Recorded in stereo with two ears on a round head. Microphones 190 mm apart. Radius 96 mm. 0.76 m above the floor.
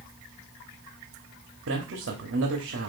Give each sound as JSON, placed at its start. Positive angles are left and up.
{"t": 1.7, "sound": "a man speaking", "side_deg": -60, "distance_m": 1.3}